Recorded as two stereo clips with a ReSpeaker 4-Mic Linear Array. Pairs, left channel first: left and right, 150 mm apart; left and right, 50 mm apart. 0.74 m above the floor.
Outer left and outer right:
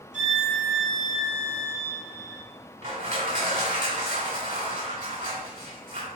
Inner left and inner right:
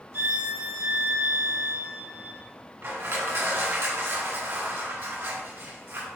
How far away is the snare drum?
I don't hear a snare drum.